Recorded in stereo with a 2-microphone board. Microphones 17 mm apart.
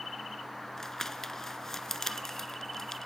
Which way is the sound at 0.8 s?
25° left (ahead or behind).